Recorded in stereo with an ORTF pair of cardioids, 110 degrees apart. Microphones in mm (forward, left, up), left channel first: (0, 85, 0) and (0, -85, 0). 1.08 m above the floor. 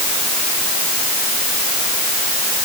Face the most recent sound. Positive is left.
No sound to turn to.